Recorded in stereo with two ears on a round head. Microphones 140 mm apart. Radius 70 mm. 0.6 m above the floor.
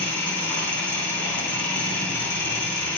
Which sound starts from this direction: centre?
An engine running, at 0.0 s.